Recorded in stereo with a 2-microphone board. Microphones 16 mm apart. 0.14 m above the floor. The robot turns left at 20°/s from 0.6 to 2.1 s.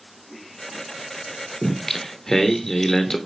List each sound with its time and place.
1.6 s singing: 15° left (ahead or behind), 0.8 m; by 3.2 s 20° left (ahead or behind), 0.8 m